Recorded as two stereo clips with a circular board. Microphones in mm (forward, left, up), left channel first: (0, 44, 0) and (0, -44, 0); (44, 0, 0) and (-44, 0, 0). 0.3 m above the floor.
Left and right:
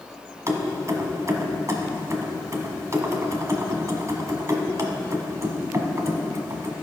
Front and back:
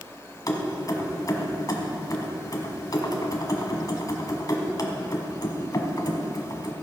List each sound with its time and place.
0.5 s keys jangling: 40° right, 1.3 m